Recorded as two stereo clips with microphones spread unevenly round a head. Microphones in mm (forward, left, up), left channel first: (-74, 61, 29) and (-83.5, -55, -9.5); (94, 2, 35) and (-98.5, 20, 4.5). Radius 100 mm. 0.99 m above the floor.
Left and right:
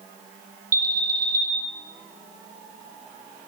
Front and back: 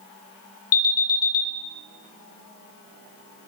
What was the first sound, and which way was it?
An alarm, 25° right.